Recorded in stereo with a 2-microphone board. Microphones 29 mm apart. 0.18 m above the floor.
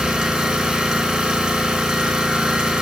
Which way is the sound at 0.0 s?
30° right (ahead or behind).